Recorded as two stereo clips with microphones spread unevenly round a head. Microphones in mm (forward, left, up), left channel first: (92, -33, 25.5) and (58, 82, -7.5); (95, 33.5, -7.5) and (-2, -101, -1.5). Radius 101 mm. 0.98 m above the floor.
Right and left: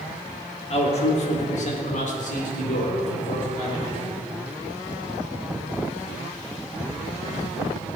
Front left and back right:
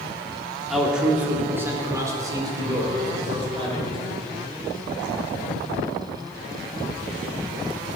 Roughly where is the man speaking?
Ahead right.